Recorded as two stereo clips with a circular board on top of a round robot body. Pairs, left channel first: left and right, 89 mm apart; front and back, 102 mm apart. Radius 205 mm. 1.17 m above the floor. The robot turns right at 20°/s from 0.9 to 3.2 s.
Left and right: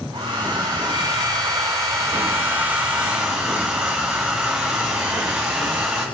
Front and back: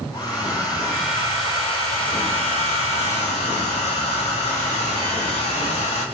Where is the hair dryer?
50° right, 1.8 m; by 6.0 s 5° right, 1.8 m.